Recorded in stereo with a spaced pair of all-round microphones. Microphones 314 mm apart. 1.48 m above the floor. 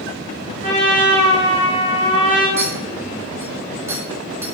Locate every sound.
0.6 s a trumpet: 25° left (ahead or behind), 4 m
2.6 s a clink: 10° right (ahead or behind), 4.5 m